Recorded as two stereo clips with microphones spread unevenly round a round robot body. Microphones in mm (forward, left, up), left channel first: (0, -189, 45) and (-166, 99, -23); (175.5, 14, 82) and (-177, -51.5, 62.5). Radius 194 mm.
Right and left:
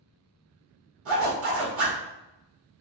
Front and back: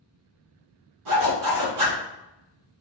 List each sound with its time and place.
1.1 s a zipper: 165° left, 1.3 m